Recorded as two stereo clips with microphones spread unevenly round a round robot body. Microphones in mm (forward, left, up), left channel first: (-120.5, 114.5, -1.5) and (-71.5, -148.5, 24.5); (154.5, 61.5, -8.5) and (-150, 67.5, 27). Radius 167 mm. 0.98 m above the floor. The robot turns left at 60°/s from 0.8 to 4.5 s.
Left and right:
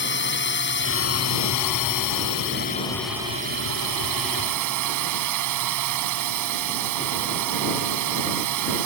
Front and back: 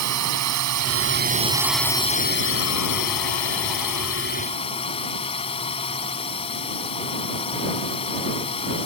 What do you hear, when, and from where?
0.0 s a drone: 145° left; by 8.8 s 75° right